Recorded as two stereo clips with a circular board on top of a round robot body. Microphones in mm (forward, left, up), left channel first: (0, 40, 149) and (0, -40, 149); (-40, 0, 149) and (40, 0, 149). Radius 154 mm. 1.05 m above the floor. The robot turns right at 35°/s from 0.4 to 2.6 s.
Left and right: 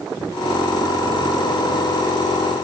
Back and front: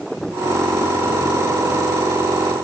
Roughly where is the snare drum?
I don't hear a snare drum.